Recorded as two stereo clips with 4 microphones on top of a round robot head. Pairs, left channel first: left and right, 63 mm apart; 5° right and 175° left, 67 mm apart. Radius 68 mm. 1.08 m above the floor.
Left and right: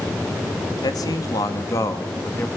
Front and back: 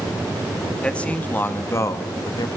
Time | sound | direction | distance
0.8 | a man speaking | 75° left | 2 m